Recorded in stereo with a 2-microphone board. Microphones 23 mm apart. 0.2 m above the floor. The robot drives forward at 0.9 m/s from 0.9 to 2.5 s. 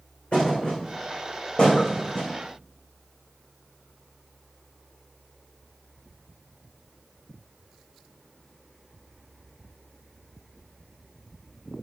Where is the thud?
50° left (ahead or behind), 5 m; by 2.3 s 60° left (ahead or behind), 4 m.